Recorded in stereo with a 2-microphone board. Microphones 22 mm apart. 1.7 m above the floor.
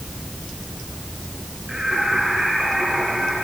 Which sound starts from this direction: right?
Singing, at 1.7 s.